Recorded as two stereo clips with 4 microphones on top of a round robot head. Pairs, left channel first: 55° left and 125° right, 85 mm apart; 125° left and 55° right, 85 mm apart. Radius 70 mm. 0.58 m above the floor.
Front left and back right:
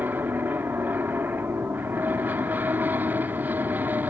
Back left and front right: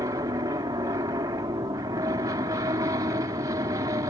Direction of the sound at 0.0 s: 65° right.